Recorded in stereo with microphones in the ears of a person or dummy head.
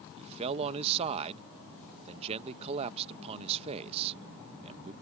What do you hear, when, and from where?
0.2 s a man speaking: 30° right (ahead or behind)